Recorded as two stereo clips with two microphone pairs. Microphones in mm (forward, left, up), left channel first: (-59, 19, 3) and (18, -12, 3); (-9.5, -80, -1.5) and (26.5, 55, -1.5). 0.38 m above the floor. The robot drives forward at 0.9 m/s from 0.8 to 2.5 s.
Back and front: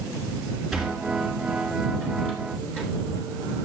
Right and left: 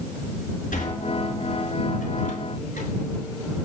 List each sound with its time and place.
0.7 s a sliding door: 110° right, 4.5 m; by 2.9 s 125° right, 5 m